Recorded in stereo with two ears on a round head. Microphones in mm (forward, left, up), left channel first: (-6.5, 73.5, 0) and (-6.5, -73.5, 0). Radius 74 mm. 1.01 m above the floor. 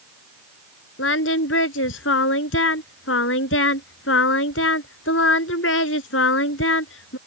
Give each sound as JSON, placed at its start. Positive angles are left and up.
{"t": 1.0, "sound": "singing", "side_deg": 85}